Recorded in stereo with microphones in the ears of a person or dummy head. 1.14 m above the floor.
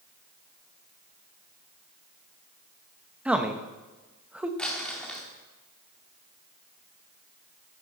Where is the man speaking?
5° right (ahead or behind), 0.9 m.